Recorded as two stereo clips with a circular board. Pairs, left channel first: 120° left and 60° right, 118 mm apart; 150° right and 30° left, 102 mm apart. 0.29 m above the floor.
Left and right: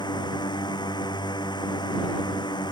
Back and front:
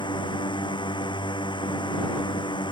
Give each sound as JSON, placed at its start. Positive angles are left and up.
{"t": 0.0, "sound": "a drone", "azimuth_deg": 170}